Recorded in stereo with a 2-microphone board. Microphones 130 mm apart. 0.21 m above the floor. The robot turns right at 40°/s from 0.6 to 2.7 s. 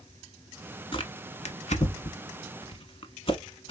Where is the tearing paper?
45° left (ahead or behind), 0.8 m.